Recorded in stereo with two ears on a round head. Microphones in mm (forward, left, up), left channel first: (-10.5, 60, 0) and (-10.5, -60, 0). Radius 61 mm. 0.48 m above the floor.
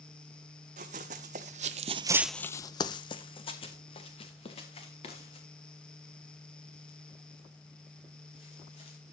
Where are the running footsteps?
55° right (ahead or behind), 1.9 m; by 9.0 s 50° left (ahead or behind), 9 m.